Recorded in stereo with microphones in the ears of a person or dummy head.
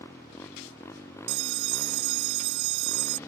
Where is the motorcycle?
15° left (ahead or behind).